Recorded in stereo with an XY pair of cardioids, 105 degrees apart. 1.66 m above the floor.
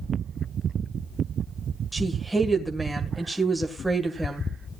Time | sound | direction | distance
1.9 | a woman speaking | 5° right | 1.8 m